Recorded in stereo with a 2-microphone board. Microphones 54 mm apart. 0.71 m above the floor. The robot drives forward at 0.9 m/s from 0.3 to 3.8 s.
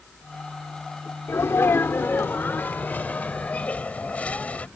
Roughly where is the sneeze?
Left.